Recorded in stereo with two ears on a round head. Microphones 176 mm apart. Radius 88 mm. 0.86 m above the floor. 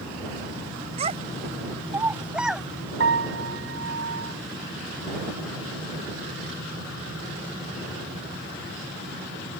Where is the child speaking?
35° right (ahead or behind); by 2.7 s centre (ahead or behind).